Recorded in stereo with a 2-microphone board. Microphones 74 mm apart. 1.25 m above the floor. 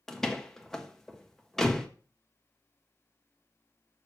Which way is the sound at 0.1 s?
5° left (ahead or behind).